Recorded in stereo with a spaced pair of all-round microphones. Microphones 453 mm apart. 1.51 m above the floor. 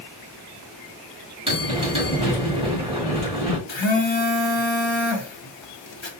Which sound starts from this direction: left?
A phone buzzing, at 3.7 s.